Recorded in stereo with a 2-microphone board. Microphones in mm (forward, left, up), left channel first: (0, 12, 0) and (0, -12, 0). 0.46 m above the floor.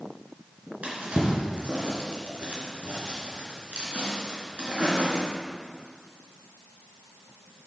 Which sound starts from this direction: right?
A drawer, at 0.8 s.